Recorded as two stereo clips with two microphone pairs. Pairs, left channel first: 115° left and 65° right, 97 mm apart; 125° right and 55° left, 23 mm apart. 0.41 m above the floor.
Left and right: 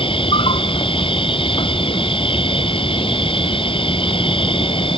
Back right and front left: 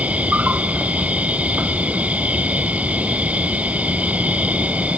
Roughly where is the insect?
Left.